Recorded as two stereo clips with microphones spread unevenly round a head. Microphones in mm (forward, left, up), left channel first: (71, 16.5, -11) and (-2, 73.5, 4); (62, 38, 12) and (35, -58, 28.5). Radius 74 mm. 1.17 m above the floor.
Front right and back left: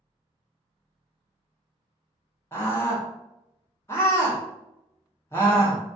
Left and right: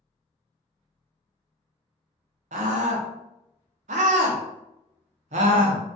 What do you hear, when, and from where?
2.5 s a scream: 115° right, 0.6 m